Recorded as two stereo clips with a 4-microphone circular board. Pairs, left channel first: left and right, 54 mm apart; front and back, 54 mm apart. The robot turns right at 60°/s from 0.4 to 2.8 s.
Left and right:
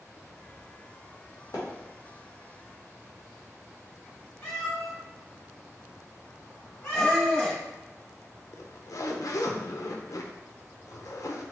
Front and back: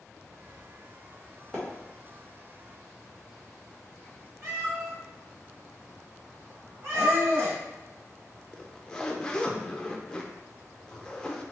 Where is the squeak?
165° left, 1.4 m.